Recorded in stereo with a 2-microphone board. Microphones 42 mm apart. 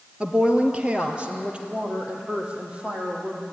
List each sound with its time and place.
0.2 s a woman speaking: 25° right (ahead or behind), 1.8 m; by 3.4 s 30° right (ahead or behind), 5 m